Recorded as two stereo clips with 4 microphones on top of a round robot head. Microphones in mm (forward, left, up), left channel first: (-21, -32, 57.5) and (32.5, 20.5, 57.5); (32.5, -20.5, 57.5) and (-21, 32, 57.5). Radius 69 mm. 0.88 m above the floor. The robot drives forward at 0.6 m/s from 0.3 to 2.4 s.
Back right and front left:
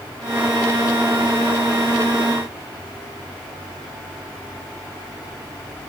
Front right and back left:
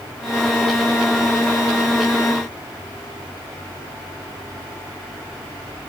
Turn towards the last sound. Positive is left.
No sound to turn to.